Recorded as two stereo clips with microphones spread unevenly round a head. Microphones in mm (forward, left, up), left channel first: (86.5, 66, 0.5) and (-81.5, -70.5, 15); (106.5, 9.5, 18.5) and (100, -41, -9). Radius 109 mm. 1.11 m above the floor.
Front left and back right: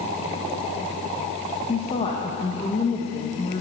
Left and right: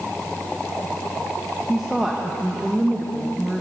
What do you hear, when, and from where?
1.7 s a woman speaking: 25° right, 1.5 m